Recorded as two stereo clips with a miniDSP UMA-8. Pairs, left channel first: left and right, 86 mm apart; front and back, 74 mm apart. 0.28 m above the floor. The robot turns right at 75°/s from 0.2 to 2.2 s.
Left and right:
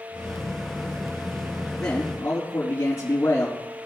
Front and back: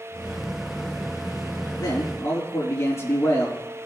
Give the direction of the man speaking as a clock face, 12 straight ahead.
12 o'clock.